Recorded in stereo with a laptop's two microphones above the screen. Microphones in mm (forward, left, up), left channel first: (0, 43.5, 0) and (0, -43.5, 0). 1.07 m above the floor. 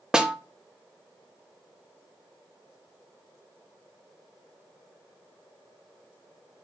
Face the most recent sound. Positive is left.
turn(degrees=-10)  # may be behind; listen again after turning